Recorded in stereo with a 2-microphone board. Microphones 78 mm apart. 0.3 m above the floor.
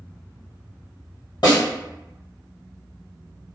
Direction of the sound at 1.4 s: 70° left (ahead or behind).